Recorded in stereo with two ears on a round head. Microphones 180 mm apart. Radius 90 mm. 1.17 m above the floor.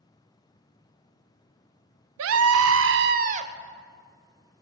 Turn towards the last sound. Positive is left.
turn(degrees=-30)  # may be behind; listen again after turning